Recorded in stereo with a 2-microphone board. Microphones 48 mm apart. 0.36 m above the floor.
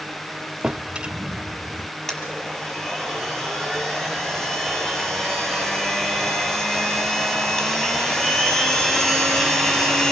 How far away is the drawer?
About 0.7 m.